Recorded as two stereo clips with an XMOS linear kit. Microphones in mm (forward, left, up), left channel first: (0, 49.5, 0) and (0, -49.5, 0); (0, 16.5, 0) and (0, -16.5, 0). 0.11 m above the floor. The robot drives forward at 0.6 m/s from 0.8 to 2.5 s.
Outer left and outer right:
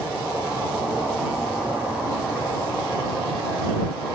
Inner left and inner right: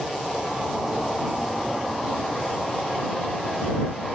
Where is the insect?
10° right (ahead or behind), 3.5 m.